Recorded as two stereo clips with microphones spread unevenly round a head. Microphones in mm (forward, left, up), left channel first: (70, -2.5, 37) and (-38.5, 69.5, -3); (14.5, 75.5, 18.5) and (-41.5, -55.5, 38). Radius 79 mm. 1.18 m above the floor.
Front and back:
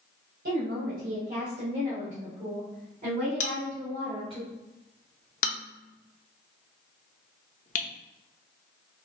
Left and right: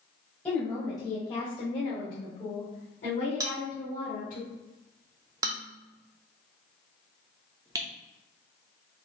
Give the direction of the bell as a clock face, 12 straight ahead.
2 o'clock.